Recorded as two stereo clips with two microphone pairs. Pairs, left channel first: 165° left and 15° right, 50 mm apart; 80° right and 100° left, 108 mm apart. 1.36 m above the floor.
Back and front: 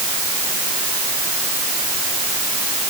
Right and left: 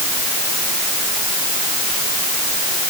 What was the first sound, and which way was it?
Only background noise.